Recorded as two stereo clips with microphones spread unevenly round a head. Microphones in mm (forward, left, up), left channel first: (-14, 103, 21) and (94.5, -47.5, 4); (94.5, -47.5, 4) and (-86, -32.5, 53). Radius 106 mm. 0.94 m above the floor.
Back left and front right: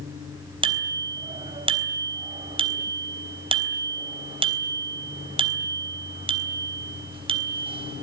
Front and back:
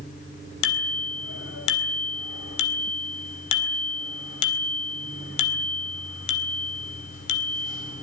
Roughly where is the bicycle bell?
Ahead.